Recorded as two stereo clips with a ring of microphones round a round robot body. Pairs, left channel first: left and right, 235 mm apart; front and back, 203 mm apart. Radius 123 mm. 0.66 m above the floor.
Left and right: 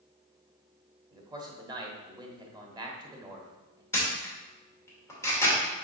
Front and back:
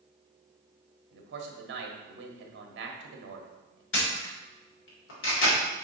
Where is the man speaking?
160° right, 1.4 m.